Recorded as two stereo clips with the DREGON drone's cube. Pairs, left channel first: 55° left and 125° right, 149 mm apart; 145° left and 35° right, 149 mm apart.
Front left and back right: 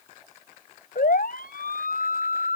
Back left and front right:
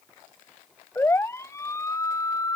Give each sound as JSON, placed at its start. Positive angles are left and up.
{"t": 0.9, "sound": "a siren", "azimuth_deg": 70}